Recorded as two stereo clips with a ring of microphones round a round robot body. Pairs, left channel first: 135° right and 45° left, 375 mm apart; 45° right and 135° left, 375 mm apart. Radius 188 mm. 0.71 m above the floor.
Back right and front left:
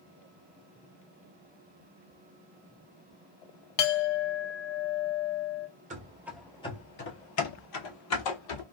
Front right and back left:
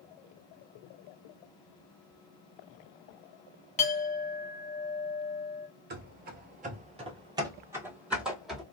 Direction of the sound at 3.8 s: 115° right.